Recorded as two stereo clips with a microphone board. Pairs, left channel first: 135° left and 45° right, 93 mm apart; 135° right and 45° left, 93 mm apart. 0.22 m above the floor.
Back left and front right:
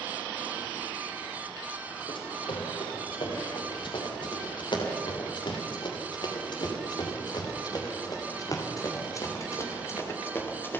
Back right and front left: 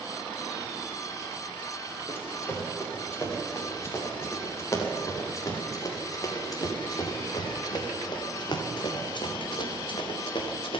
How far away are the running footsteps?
About 7.5 m.